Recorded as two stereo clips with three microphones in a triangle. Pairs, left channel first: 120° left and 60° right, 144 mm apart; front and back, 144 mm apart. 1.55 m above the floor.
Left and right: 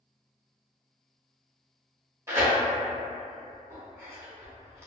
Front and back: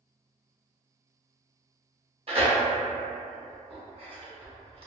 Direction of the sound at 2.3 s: 130° right.